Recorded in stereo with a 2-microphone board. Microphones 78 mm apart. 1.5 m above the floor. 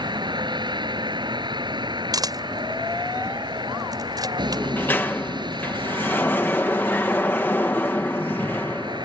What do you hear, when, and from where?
0.0 s a vehicle: 65° right (ahead or behind)
2.1 s a camera shutter: 50° right (ahead or behind)
4.5 s a sliding door: 25° left (ahead or behind)